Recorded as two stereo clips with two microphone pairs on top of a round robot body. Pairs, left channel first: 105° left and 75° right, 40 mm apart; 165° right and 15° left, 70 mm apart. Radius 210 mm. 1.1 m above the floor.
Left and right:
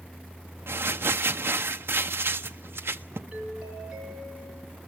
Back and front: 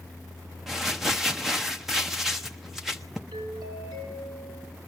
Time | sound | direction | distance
0.7 | crumpling | 70° right | 0.7 m
3.3 | a doorbell | 5° right | 9 m